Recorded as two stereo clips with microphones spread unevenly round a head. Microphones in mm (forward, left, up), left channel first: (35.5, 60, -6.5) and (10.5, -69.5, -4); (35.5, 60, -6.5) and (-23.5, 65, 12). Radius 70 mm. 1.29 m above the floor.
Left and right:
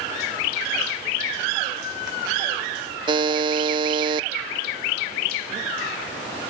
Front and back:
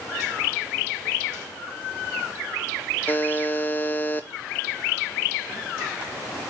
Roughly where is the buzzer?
Ahead right.